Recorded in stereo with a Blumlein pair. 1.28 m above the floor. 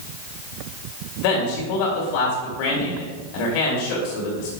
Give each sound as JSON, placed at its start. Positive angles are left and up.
{"t": 1.2, "sound": "a man speaking", "azimuth_deg": 45, "distance_m": 3.0}